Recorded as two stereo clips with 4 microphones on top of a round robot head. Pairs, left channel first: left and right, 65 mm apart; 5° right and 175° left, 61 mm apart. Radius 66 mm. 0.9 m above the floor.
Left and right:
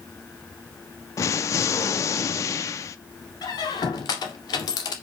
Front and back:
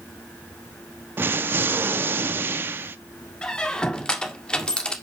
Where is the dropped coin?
I don't hear a dropped coin.